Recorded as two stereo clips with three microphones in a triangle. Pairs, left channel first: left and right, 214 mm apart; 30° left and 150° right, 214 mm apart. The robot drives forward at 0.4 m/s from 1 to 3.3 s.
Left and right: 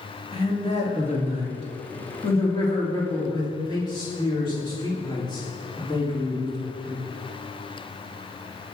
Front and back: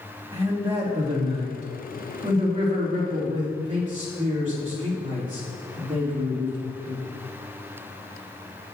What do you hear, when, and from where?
0.3 s a man speaking: 150° left, 2.0 m; by 7.0 s 160° left, 3 m